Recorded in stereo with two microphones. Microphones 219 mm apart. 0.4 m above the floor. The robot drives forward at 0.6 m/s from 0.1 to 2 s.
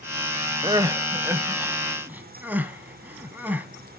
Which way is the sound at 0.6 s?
20° right (ahead or behind).